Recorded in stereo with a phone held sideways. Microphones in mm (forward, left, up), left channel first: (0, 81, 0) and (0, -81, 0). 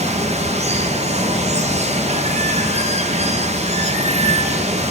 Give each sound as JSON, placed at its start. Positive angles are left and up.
{"t": 0.0, "sound": "running water", "side_deg": -40, "distance_m": 0.8}